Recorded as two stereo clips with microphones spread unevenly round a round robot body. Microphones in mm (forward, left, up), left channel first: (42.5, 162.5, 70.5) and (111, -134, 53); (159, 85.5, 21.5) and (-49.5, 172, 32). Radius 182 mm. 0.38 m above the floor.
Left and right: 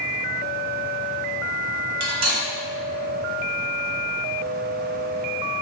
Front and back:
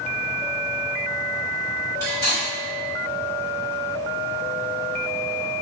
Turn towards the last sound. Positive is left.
turn(degrees=-100)